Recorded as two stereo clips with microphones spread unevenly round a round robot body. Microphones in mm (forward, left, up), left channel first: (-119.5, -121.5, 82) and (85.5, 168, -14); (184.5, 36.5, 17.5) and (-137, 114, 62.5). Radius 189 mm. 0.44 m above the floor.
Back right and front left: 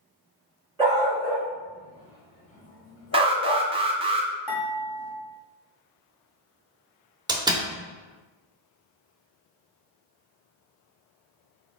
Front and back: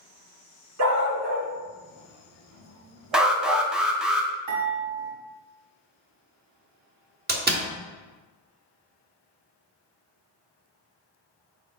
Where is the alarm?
65° left, 0.5 m.